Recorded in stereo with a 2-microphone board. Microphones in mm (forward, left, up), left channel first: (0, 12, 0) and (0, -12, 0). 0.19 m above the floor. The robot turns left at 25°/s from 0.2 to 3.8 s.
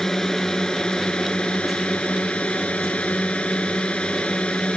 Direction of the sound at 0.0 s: 155° left.